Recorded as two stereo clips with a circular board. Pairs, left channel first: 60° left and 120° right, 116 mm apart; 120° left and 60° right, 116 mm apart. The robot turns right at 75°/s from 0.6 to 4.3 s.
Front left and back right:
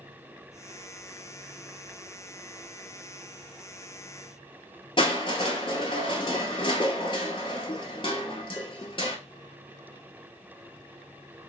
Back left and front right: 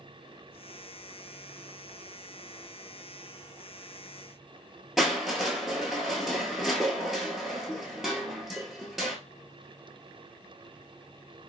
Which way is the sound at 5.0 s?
25° left.